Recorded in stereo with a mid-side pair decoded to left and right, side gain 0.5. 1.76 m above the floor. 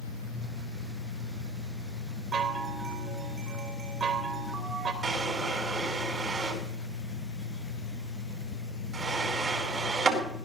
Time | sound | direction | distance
0.0 | a fan | 65° left | 2.5 m
2.3 | a chime | 45° right | 3 m
5.0 | a drawer | 35° right | 4.5 m